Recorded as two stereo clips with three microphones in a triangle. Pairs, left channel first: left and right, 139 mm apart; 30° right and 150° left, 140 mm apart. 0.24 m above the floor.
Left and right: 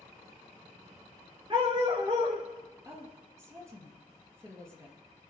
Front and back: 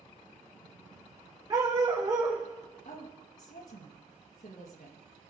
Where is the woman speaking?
20° right, 4 m.